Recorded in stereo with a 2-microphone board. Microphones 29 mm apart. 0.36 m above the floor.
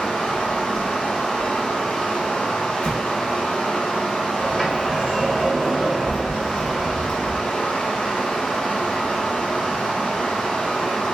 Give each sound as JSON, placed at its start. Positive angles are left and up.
{"t": 0.0, "sound": "running water", "side_deg": 75, "distance_m": 1.6}
{"t": 2.8, "sound": "an explosion", "side_deg": 55, "distance_m": 0.6}
{"t": 4.4, "sound": "a sliding door", "side_deg": 20, "distance_m": 1.2}